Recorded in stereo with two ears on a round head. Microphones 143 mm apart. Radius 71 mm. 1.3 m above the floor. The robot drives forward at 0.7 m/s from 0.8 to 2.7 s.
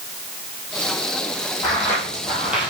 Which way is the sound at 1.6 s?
20° left (ahead or behind).